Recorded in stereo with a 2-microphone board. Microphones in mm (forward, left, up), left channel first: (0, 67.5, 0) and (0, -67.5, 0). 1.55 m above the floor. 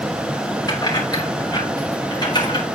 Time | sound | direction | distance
0.7 | keys jangling | 30° left (ahead or behind) | 5.5 m